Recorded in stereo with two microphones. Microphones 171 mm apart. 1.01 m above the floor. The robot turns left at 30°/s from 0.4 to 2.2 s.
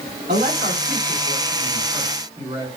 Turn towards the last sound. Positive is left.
turn(degrees=-160)